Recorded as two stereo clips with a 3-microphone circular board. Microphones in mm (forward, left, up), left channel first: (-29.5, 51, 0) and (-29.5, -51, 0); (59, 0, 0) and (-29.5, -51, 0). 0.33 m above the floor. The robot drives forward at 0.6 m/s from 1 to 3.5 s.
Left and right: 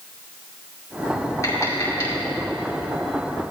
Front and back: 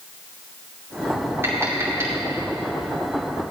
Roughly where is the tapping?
Behind left.